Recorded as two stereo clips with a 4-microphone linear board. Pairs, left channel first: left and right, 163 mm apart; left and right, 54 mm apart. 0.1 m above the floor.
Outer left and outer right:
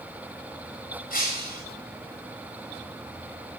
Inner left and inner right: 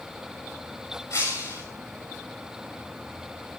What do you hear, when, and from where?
1.1 s breaking glass: 55° left (ahead or behind), 7.5 m